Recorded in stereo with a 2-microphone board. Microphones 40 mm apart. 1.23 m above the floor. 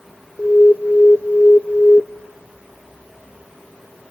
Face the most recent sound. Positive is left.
turn(degrees=35)  # may be behind; listen again after turning